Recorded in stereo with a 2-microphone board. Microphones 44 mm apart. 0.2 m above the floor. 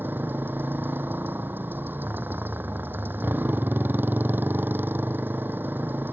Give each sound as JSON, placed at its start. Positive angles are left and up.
{"t": 0.0, "sound": "a motorcycle", "side_deg": -50}